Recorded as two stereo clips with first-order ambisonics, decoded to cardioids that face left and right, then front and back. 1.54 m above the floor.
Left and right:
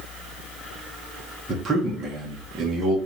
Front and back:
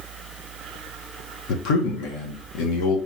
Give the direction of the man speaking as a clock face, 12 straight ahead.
1 o'clock.